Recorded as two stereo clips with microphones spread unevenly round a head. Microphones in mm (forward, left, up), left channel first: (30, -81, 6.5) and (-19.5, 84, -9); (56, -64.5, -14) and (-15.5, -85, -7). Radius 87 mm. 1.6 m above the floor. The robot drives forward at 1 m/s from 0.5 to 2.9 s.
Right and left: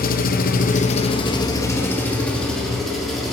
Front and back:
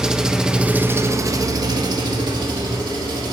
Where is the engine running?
90° right, 1.0 m; by 3.3 s 160° right, 2.5 m.